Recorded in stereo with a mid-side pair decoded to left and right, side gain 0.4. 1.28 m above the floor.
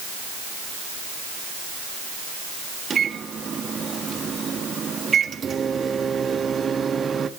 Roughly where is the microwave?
Ahead right.